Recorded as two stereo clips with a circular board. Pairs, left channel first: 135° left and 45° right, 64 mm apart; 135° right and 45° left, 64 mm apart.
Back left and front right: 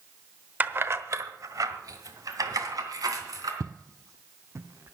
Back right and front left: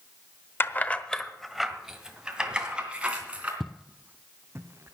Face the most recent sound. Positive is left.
turn(degrees=0)